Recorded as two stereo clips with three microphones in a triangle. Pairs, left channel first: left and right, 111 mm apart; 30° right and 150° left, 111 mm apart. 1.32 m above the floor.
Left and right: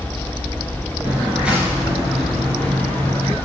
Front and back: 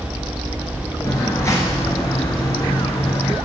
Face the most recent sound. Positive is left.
turn(degrees=25)